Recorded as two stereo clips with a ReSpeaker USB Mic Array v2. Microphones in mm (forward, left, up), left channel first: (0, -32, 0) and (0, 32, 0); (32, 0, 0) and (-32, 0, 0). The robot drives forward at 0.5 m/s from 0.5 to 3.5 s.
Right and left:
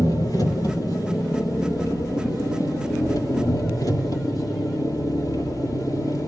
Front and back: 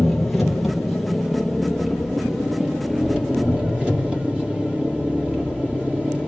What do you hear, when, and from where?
0.0 s an engine running: 90° right, 6 m; by 6.3 s 105° right, 6 m